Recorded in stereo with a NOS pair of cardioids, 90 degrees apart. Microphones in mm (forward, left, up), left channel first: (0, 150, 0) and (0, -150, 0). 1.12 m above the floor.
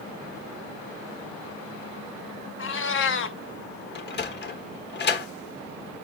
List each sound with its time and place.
2.6 s a cat meowing: 45° left, 1.1 m
4.0 s a sliding door: 35° left, 1.4 m